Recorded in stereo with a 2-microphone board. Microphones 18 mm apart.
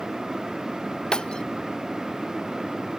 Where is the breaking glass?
60° left (ahead or behind).